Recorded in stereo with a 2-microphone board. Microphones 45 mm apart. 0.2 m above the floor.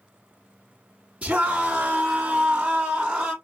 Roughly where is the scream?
Right.